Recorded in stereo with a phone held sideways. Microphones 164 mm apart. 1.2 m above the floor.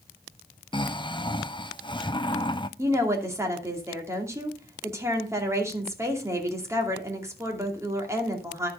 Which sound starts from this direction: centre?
A woman speaking, at 2.8 s.